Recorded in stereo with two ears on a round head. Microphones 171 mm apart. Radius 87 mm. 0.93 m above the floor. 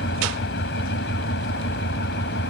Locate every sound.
0.0 s an engine running: 70° left (ahead or behind)